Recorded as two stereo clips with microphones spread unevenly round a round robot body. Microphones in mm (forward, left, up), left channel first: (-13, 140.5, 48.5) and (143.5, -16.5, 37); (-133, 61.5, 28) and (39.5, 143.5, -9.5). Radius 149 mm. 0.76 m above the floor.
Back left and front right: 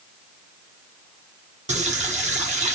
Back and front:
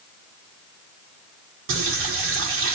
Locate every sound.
1.7 s a running tap: 15° left, 1.1 m